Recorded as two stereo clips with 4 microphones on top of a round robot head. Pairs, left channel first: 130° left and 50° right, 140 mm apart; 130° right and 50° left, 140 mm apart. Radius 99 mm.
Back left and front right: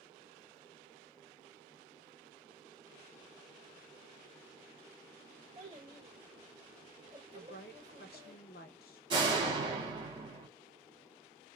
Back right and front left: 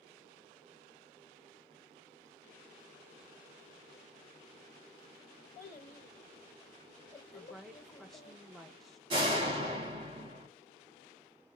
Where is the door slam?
Straight ahead, 1.1 m.